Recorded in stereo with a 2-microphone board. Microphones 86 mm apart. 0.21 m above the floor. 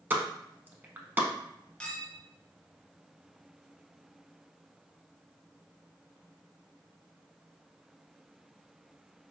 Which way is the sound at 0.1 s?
20° right (ahead or behind).